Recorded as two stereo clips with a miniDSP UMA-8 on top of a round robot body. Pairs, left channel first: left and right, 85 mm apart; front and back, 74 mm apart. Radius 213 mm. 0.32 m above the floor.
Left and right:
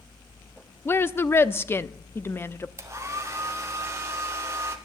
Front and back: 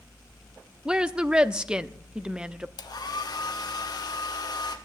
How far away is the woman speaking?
About 1.0 m.